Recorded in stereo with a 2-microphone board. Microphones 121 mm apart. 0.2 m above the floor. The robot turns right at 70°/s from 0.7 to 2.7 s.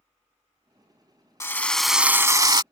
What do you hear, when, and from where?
1.4 s a drill: 150° left; by 2.6 s 125° right